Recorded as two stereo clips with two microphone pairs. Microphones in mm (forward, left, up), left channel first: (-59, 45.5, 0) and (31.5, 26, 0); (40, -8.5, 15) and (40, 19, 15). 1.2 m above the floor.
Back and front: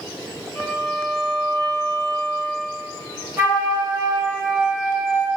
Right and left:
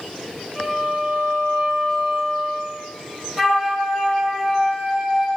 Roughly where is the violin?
Behind left.